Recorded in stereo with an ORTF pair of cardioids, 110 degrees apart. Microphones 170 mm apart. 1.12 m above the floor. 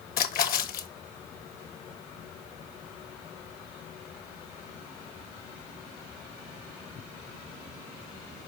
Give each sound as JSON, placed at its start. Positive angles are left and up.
{"t": 0.2, "sound": "a splash", "azimuth_deg": 60, "distance_m": 1.1}